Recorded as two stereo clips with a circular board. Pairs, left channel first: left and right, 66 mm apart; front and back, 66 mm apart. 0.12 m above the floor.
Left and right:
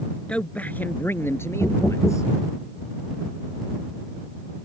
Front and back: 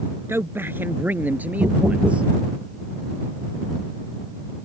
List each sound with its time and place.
0.3 s a man speaking: 155° left; by 2.3 s 110° left
1.6 s knocking: 160° left